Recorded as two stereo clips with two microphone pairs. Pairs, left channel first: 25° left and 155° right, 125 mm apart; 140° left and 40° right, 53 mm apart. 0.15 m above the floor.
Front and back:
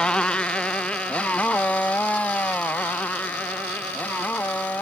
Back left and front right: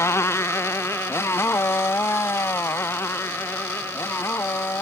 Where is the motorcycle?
110° left; by 4.8 s 105° left.